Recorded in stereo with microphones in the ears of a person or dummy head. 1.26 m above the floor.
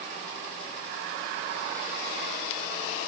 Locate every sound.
Only background noise.